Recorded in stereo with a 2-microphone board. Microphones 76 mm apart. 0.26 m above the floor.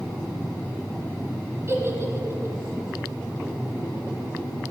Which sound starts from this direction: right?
A giggle, at 1.7 s.